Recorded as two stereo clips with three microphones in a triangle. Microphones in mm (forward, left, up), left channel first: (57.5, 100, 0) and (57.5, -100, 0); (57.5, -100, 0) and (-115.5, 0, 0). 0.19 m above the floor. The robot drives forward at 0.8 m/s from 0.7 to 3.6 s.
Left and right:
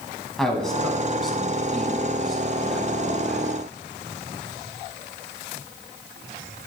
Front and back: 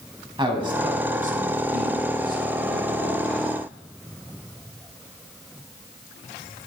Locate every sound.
0.4 s a man speaking: 175° left, 1.1 m; by 3.5 s straight behind, 3 m